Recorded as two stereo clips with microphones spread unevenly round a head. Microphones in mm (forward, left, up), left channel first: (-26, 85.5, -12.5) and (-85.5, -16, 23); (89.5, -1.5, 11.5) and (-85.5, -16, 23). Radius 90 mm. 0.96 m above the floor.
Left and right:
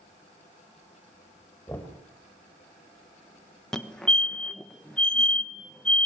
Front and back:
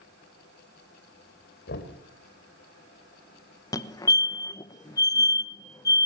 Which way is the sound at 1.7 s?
20° right.